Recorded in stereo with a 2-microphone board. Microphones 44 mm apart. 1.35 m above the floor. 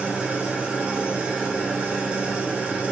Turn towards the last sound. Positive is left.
turn(degrees=-25)  # may be behind; listen again after turning